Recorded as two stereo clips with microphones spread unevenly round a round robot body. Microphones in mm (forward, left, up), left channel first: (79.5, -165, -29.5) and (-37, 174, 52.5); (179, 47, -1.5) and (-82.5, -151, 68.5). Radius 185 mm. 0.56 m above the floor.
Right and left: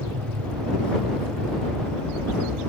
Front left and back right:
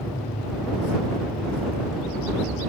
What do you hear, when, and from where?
0.0 s an aircraft: 110° left